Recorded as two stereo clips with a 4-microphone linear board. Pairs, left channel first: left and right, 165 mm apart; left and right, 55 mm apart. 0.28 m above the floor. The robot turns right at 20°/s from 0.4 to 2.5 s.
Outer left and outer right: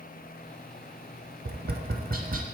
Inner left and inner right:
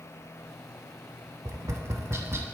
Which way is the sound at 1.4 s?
65° right (ahead or behind).